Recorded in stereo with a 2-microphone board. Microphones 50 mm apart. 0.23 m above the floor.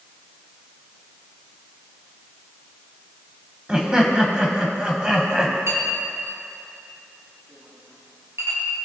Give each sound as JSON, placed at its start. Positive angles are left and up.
{"t": 3.7, "sound": "laughter", "side_deg": -20, "distance_m": 1.2}
{"t": 5.7, "sound": "a clink", "side_deg": -75, "distance_m": 3.5}